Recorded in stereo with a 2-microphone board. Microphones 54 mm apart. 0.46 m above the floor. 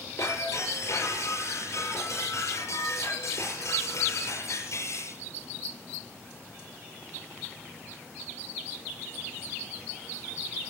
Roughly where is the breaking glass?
Left.